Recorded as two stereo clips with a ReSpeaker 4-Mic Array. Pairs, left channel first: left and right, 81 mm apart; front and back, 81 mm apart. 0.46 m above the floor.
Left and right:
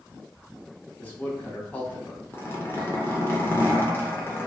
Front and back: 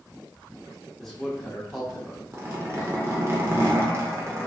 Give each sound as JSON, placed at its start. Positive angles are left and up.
{"t": 1.0, "sound": "a man speaking", "azimuth_deg": 80, "distance_m": 0.7}
{"t": 2.3, "sound": "a zipper", "azimuth_deg": 140, "distance_m": 0.6}